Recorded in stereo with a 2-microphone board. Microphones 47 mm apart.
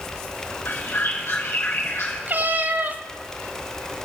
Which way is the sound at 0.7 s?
60° left (ahead or behind).